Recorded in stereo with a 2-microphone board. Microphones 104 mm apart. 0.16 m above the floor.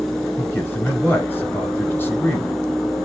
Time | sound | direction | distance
0.4 | a man speaking | 20° left (ahead or behind) | 1.9 m